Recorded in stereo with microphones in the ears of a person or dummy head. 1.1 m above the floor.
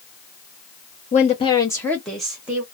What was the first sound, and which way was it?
A woman speaking, 35° left (ahead or behind).